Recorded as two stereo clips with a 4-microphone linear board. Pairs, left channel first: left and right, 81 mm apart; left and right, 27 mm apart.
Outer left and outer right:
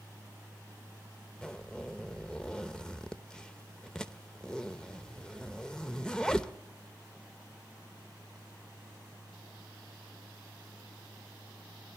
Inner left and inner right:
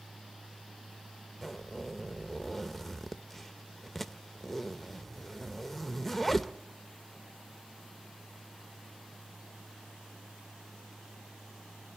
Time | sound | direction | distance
1.4 | a zipper | 10° left (ahead or behind) | 0.7 m